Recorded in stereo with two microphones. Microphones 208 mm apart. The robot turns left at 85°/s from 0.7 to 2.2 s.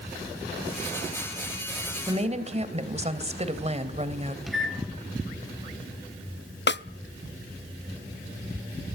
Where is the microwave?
Centre (ahead or behind), 3 m.